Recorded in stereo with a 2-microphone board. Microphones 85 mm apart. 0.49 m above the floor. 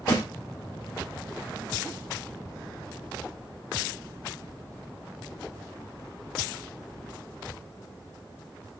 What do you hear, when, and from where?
0.1 s a snare drum: 70° left (ahead or behind), 2.0 m